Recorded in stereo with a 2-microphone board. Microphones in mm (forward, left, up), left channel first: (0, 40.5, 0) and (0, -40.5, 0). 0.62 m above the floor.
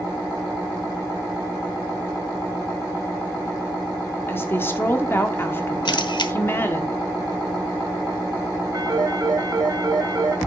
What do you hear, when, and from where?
4.3 s a woman speaking: 30° left (ahead or behind), 1.5 m
5.8 s a camera shutter: 65° left (ahead or behind), 0.9 m
8.7 s a phone ringing: 50° right (ahead or behind), 1.9 m